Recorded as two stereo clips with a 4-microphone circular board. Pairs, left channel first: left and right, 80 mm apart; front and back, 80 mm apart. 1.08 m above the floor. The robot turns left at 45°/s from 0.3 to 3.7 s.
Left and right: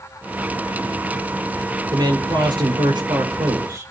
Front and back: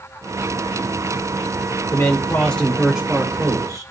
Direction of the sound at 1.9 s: 50° right.